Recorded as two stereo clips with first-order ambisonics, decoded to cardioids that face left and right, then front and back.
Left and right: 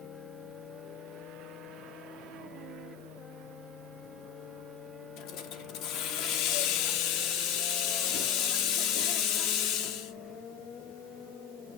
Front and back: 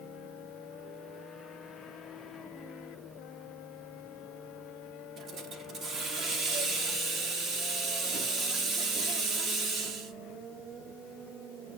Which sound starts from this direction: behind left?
A hiss, at 5.2 s.